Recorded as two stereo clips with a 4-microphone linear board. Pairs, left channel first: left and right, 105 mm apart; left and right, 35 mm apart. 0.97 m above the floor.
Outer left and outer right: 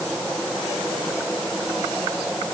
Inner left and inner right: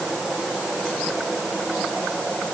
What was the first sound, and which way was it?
Only background noise.